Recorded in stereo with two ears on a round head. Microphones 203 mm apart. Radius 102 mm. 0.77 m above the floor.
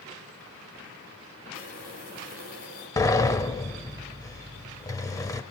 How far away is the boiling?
About 6 m.